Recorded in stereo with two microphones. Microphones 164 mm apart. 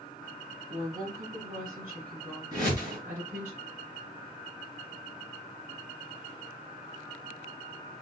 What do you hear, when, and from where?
0.7 s a woman speaking: 65° right (ahead or behind), 2.5 m; by 3.5 s 50° right (ahead or behind), 4 m
2.5 s a whoosh: 30° right (ahead or behind), 3 m